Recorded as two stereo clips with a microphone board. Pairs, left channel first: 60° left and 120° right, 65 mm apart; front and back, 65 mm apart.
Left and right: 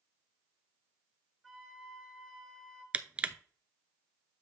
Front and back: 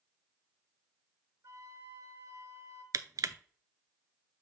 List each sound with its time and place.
1.4 s a flute: 150° left, 2.5 m
2.9 s crushing: 175° left, 0.5 m